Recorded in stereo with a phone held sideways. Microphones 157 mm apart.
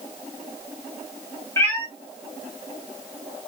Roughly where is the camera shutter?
No camera shutter in this recording.